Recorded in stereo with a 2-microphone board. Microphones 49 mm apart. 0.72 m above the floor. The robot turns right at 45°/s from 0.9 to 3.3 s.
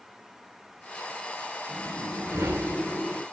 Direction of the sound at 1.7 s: 100° right.